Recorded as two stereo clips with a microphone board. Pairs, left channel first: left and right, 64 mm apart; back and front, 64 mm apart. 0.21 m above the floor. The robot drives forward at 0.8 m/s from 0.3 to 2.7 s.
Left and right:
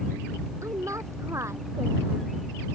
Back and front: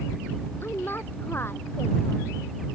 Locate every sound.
0.6 s a woman speaking: 125° right; by 2.3 s 130° right